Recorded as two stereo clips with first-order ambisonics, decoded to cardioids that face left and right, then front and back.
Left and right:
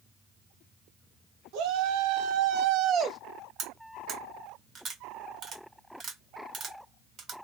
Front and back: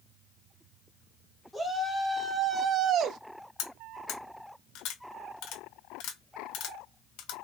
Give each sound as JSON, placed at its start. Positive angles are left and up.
{"t": 1.5, "sound": "a shout", "azimuth_deg": -95, "distance_m": 1.7}
{"t": 3.6, "sound": "cutlery clinking", "azimuth_deg": -30, "distance_m": 1.6}